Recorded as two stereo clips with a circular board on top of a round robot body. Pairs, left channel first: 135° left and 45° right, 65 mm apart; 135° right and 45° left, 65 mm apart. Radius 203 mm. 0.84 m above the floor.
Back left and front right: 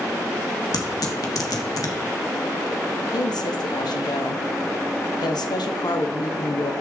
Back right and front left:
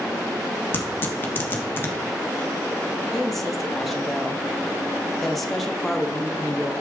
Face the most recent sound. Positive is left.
turn(degrees=135)